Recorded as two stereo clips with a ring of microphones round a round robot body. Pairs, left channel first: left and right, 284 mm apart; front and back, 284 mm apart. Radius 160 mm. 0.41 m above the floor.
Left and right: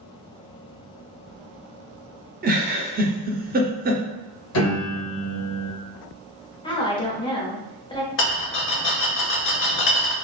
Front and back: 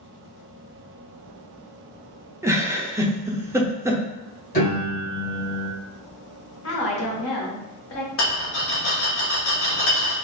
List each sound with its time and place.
2.4 s a giggle: 110° right, 0.7 m
4.5 s a piano: 60° left, 1.9 m
6.6 s a woman speaking: 20° left, 1.3 m
8.2 s a rattle: 45° left, 1.2 m